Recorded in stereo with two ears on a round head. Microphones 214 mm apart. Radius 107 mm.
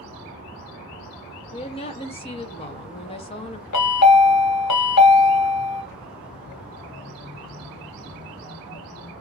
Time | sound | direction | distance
1.5 | a woman speaking | 25° left (ahead or behind) | 0.6 m
3.7 | a chime | 75° left (ahead or behind) | 1.0 m